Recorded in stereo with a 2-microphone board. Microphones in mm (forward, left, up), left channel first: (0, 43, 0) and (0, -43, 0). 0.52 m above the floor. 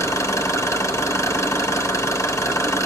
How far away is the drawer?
I don't hear a drawer.